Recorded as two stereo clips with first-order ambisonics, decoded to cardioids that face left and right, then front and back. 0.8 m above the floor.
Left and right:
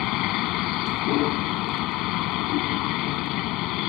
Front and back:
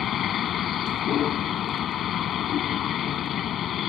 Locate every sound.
0.0 s a vehicle: 60° left